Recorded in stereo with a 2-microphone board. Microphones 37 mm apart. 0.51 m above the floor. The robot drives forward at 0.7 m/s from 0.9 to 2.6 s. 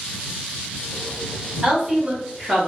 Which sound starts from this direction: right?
A woman speaking, at 1.6 s.